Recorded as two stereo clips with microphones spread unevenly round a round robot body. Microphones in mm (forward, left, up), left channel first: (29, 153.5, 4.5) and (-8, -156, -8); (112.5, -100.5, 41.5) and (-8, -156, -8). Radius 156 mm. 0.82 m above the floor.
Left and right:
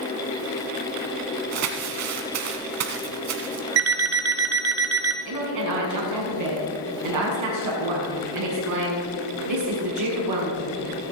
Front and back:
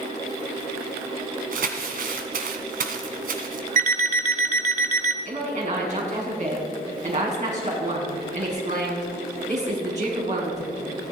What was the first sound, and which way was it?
Crumpling, 140° right.